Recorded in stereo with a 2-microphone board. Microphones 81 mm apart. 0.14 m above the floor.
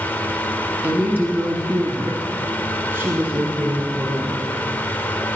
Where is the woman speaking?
20° right (ahead or behind), 1.6 m; by 4.5 s 25° right (ahead or behind), 2.5 m.